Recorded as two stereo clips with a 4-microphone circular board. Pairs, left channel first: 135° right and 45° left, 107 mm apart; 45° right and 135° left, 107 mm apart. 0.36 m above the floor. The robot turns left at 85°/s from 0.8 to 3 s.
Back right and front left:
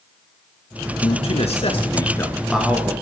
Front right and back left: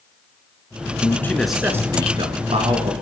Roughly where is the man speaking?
Right.